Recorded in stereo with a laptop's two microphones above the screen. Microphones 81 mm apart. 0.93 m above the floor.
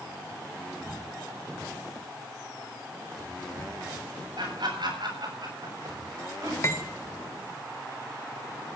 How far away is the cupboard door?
I don't hear a cupboard door.